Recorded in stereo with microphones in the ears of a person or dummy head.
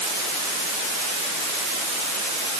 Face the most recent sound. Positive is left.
No sound to turn to.